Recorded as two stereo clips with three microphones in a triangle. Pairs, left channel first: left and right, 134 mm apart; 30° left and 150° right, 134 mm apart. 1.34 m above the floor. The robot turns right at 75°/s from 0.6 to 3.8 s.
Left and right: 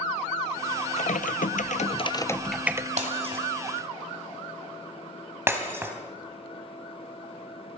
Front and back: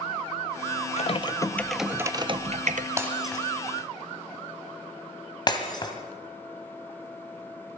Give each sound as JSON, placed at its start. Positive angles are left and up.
{"t": 1.0, "sound": "typing on a keyboard", "azimuth_deg": 60, "distance_m": 0.6}
{"t": 3.0, "sound": "breaking glass", "azimuth_deg": -85, "distance_m": 2.0}